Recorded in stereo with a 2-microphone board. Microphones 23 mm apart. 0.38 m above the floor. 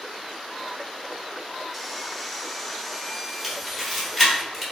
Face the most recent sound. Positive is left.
turn(degrees=5)  # may be behind; listen again after turning